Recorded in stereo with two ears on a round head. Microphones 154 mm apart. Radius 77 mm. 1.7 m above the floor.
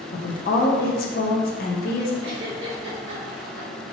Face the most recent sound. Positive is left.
turn(degrees=-70)  # may be behind; listen again after turning